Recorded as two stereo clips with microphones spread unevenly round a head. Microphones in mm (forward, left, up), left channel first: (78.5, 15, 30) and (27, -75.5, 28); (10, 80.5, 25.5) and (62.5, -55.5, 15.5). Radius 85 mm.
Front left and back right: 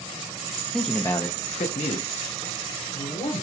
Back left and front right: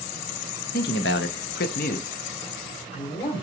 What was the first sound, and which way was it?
A man speaking, 150° left.